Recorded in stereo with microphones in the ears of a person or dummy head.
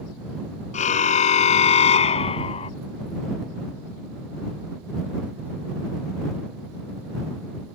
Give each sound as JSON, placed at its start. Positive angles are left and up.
{"t": 0.7, "sound": "a car horn", "side_deg": 45}